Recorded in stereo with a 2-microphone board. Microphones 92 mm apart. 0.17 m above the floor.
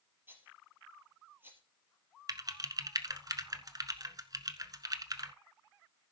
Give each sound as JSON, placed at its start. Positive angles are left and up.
{"t": 0.3, "sound": "a rattle", "side_deg": -25, "distance_m": 3.5}
{"t": 2.3, "sound": "typing on a keyboard", "side_deg": -45, "distance_m": 1.0}